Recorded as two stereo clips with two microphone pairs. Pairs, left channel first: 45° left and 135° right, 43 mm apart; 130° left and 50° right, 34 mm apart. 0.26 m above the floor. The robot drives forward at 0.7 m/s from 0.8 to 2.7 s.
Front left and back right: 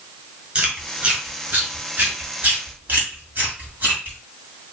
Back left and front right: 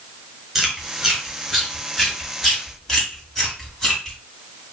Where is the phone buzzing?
I don't hear a phone buzzing.